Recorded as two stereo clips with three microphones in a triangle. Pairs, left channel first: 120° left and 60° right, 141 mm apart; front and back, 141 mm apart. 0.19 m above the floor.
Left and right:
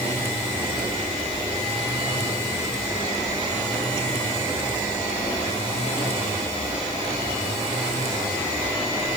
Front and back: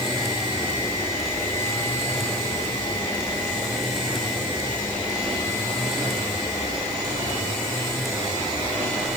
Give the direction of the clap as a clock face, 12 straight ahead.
I don't hear a clap.